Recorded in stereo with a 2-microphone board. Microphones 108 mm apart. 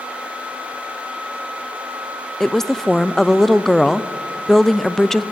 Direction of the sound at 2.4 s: 5° left (ahead or behind).